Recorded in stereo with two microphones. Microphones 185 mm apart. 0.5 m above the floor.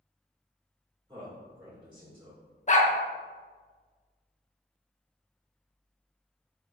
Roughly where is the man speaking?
Right.